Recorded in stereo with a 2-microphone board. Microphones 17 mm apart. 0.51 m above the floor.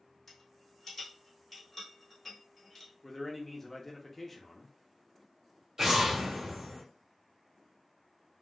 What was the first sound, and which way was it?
A rattle, 5° left (ahead or behind).